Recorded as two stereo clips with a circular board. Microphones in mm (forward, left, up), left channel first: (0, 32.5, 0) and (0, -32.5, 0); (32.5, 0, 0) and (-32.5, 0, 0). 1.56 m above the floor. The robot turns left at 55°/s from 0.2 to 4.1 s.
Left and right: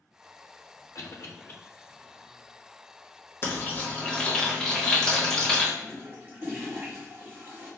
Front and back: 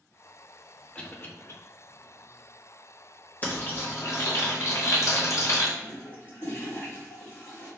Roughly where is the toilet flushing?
Ahead right.